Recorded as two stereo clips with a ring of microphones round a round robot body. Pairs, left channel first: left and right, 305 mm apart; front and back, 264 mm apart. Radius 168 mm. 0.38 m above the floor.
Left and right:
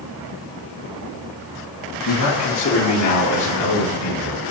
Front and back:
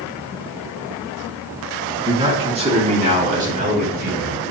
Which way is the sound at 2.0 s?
110° left.